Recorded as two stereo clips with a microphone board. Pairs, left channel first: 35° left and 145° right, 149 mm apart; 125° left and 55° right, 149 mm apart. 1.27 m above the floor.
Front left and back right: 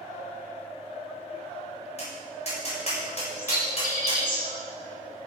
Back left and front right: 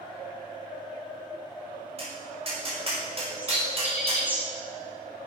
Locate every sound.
2.0 s tapping: 5° right, 7 m
3.4 s a bird: 25° left, 5 m